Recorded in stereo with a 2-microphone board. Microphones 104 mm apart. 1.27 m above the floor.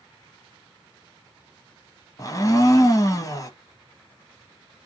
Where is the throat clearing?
No throat clearing in this recording.